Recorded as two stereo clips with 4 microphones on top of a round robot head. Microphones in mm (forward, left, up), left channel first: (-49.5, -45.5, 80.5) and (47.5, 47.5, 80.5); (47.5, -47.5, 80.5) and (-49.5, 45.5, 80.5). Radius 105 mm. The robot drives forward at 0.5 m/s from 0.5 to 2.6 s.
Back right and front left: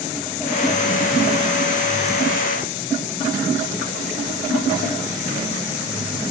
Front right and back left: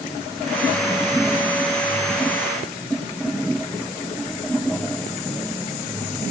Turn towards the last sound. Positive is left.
No sound to turn to.